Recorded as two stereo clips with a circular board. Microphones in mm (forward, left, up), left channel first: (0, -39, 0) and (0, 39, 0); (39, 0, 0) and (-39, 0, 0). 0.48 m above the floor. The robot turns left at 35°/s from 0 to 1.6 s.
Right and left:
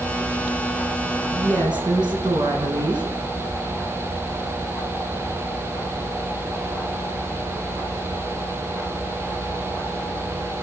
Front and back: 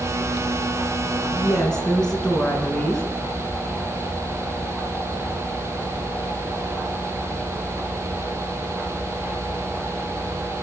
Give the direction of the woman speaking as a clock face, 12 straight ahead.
9 o'clock.